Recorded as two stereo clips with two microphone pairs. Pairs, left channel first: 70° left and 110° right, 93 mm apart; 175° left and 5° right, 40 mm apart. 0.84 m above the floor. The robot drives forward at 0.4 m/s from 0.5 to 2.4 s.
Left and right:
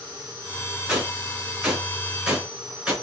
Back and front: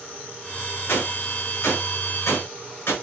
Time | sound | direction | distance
0.9 | a gunshot | 165° left | 4.5 m